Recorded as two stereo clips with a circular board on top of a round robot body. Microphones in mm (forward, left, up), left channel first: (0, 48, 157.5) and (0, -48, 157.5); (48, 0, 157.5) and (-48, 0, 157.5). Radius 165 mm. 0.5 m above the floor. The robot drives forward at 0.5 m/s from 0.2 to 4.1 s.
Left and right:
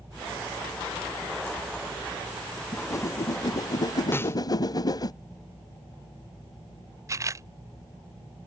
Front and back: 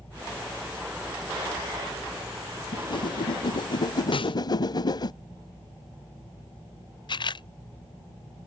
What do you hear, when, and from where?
2.7 s a whoosh: 35° left; by 5.1 s 45° left
4.1 s a snare drum: 25° left
7.1 s a camera shutter: 35° right